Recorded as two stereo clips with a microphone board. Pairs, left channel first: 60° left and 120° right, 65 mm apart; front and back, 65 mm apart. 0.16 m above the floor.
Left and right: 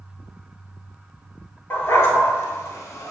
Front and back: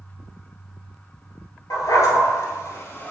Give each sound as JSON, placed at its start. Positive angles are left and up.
{"t": 1.7, "sound": "a dog barking", "azimuth_deg": 15, "distance_m": 1.3}